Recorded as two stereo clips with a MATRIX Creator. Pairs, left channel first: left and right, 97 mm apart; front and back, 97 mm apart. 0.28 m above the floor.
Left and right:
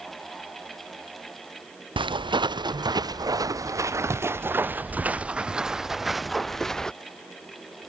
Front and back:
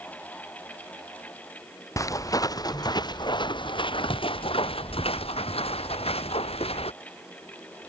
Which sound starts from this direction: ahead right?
Footsteps, at 2.0 s.